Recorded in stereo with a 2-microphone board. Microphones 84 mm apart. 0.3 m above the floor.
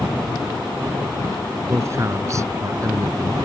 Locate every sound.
1.7 s a man speaking: 35° right (ahead or behind); by 3.4 s 45° right (ahead or behind)